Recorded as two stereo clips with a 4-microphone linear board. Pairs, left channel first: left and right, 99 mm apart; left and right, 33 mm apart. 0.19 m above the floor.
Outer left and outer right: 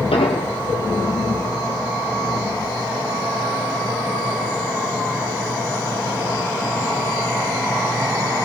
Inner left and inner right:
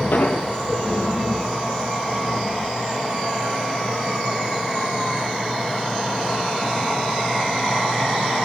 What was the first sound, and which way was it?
An explosion, 85° left.